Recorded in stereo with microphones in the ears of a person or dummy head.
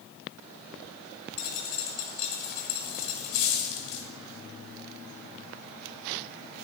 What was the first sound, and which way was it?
A dropped coin, 55° left (ahead or behind).